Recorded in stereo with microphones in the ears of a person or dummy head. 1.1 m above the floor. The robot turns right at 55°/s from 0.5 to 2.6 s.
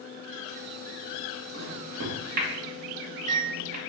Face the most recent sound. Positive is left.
turn(degrees=-35)  # may be behind; listen again after turning